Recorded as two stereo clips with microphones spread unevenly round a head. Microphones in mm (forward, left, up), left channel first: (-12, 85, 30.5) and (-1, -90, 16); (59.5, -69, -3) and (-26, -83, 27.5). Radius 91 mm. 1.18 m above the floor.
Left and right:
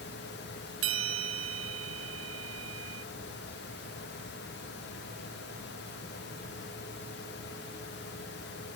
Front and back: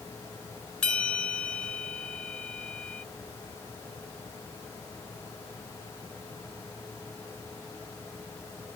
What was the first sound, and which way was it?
A bell, 70° right.